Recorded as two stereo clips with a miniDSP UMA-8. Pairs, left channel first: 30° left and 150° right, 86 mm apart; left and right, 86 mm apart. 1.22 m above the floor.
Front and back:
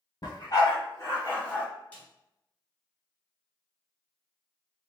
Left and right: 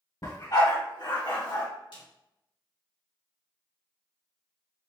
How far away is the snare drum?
About 2.0 m.